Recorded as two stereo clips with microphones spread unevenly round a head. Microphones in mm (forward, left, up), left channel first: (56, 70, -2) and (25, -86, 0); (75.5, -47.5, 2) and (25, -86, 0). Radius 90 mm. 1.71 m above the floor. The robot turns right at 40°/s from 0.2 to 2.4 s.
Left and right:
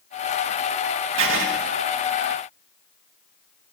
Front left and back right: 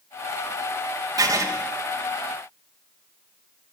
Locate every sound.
1.2 s writing: 120° right, 2.5 m; by 1.4 s 110° right, 2.5 m